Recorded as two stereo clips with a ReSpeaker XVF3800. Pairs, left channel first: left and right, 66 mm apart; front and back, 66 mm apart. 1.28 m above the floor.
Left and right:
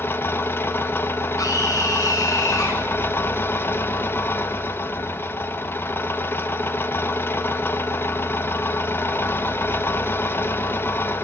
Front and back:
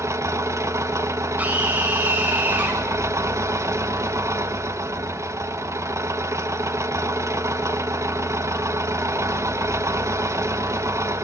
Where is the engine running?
140° left, 1.6 m.